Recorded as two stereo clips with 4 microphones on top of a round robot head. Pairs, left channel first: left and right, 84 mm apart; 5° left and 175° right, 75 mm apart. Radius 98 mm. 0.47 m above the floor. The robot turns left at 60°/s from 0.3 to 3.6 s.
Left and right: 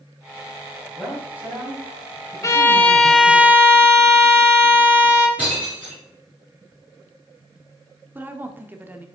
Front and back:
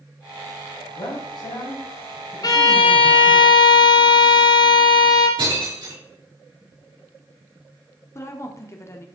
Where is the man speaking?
5° left, 4 m; by 3.4 s 145° right, 4 m.